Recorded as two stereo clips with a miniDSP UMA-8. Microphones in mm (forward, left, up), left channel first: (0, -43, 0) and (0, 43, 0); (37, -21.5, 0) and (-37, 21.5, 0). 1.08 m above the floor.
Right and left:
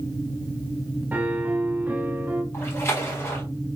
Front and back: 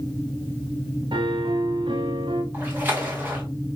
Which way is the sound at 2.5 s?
145° right.